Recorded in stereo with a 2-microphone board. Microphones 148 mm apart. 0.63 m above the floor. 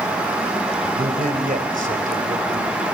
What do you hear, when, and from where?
0.9 s a man speaking: 70° right (ahead or behind), 2.5 m